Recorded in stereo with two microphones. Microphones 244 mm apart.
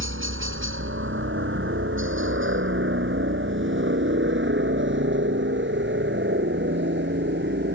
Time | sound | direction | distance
0.0 | a helicopter | 55° right (ahead or behind) | ?